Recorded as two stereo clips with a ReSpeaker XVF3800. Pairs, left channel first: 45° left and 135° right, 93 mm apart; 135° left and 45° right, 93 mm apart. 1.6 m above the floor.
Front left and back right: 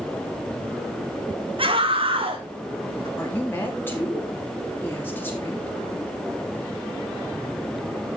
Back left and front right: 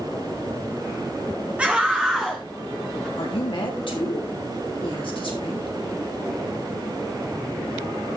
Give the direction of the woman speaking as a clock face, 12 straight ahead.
8 o'clock.